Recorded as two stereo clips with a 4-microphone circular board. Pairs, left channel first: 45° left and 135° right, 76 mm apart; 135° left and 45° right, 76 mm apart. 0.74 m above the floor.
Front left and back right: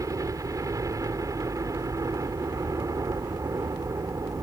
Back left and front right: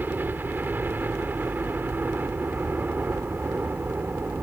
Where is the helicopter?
105° right.